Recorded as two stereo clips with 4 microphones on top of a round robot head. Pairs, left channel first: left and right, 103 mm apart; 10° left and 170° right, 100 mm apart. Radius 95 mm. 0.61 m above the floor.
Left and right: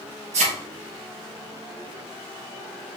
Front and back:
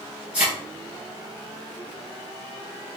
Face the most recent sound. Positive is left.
turn(degrees=-90)